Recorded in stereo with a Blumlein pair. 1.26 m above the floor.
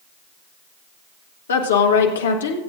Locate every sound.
1.5 s a woman speaking: 65° left, 1.3 m